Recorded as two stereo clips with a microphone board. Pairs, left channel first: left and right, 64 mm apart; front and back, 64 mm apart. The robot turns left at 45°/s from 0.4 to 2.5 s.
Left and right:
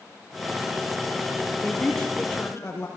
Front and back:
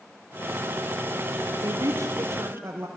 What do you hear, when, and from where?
1.6 s a woman speaking: 170° left, 4 m; by 2.9 s 130° left, 4 m